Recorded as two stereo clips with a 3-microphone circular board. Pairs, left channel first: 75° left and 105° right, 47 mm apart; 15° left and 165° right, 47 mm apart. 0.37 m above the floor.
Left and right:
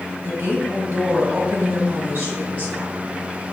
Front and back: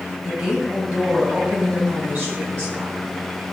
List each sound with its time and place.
0.2 s a woman speaking: 90° right, 1.7 m; by 2.9 s 135° right, 3.5 m